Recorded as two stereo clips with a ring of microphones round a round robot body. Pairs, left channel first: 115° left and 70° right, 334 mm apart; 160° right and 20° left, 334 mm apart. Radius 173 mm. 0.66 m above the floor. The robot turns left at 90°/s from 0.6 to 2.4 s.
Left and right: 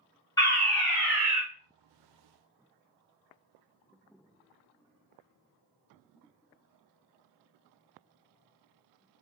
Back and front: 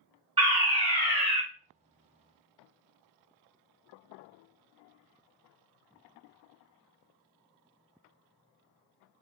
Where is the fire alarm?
55° left, 1.4 m; by 1.4 s 20° right, 1.4 m.